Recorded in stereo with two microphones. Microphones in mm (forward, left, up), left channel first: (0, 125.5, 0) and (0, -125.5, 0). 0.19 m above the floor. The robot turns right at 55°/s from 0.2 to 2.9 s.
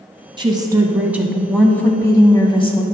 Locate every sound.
0.4 s a woman speaking: 20° right (ahead or behind), 1.0 m; by 2.8 s 20° left (ahead or behind), 1.0 m